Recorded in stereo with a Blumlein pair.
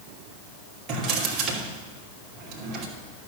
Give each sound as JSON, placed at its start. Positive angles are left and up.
{"t": 0.9, "sound": "a drawer", "azimuth_deg": -30, "distance_m": 2.5}